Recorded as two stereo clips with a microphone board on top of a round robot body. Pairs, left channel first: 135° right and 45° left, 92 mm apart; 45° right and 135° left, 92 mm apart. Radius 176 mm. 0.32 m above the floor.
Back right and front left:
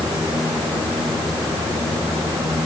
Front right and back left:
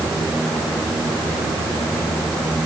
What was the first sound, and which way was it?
Only background noise.